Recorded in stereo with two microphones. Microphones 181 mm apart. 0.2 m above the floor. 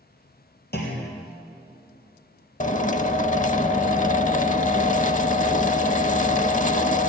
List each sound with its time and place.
0.7 s a clunk: 65° left (ahead or behind), 3.5 m
2.6 s a drill: 45° left (ahead or behind), 0.5 m